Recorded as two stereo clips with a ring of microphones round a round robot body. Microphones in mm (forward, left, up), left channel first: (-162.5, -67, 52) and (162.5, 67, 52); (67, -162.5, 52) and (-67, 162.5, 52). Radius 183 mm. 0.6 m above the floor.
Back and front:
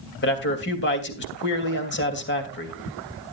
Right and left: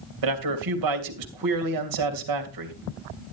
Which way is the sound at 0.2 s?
145° left.